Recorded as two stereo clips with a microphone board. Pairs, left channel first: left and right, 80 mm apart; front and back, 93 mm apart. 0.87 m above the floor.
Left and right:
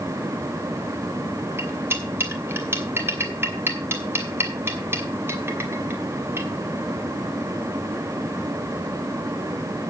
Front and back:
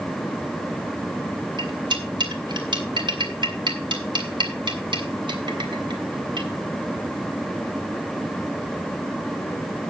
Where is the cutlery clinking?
150° right, 2.5 m.